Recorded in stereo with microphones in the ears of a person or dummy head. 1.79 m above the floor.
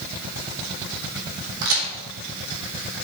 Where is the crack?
70° right (ahead or behind), 3.5 m.